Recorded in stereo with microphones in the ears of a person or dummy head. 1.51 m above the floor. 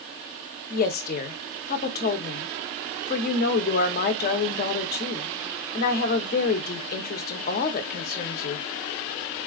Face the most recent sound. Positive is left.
turn(degrees=45)  # may be behind; listen again after turning